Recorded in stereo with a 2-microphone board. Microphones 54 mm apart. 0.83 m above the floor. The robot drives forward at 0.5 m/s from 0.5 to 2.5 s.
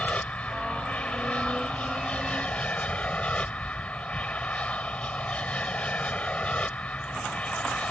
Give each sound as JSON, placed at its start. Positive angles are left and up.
{"t": 0.0, "sound": "an aircraft", "side_deg": 25}